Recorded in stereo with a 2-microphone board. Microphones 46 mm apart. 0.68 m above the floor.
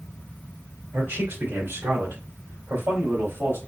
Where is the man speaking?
70° right (ahead or behind), 2.0 m; by 3.6 s 65° right (ahead or behind), 2.5 m.